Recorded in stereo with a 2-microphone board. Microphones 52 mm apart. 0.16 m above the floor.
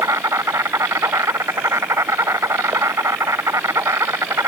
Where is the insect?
70° right (ahead or behind).